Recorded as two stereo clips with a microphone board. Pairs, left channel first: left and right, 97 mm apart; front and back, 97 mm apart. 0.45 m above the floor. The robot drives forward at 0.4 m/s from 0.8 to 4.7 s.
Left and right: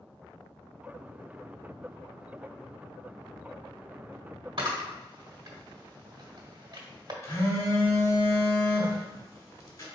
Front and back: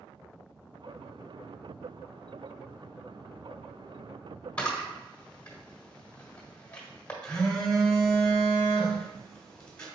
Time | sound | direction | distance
4.6 | a camera shutter | 70° right | 1.5 m
7.2 | a phone buzzing | 70° left | 1.5 m